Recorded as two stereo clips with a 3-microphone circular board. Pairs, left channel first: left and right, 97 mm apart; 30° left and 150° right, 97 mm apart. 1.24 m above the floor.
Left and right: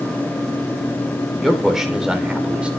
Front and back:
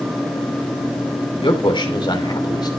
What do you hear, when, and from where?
1.4 s a man speaking: straight ahead, 3.5 m; by 2.7 s 10° right, 3.5 m